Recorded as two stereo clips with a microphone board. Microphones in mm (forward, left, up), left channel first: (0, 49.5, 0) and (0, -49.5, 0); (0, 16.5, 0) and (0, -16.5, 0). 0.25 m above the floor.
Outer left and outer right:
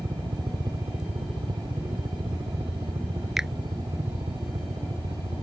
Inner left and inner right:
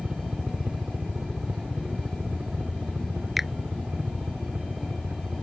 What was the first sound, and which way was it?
A helicopter, 45° right (ahead or behind).